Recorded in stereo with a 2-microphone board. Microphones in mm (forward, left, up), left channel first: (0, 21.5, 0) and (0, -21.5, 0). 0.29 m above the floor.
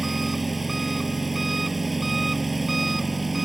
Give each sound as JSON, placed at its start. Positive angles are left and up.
{"t": 0.0, "sound": "an engine running", "side_deg": -5}